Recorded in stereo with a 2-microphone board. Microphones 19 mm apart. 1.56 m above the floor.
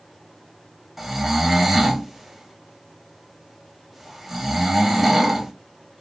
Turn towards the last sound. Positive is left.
turn(degrees=-10)  # may be behind; listen again after turning